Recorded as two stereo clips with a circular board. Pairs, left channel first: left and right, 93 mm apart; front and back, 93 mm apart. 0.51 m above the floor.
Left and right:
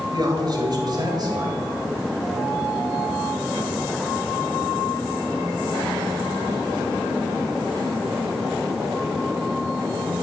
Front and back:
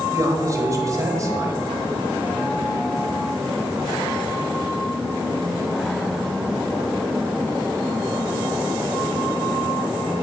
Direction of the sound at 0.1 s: 130° right.